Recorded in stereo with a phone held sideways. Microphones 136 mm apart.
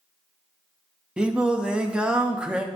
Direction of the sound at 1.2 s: 10° right (ahead or behind).